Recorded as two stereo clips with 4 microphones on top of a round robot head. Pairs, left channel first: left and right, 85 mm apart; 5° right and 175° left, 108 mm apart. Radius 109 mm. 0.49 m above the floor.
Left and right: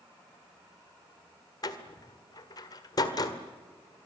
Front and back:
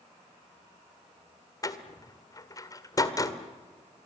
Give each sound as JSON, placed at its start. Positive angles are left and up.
{"t": 1.6, "sound": "a door slam", "azimuth_deg": 50, "distance_m": 1.8}